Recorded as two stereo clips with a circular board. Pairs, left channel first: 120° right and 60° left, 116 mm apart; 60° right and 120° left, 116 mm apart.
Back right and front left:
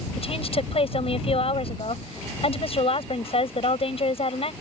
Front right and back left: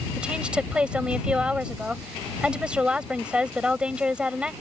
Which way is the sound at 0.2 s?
160° right.